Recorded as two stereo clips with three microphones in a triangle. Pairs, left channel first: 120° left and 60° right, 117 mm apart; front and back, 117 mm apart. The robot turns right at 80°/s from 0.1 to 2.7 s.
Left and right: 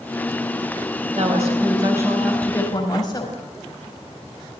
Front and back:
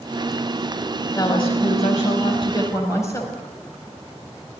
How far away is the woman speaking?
About 4.5 m.